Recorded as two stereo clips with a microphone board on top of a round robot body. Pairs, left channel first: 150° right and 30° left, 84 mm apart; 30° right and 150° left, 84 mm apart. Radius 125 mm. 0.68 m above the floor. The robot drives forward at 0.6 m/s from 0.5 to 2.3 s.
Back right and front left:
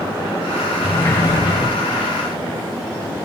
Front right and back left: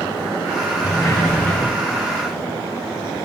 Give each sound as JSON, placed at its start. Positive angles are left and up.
{"t": 0.8, "sound": "a sliding door", "azimuth_deg": -80, "distance_m": 1.0}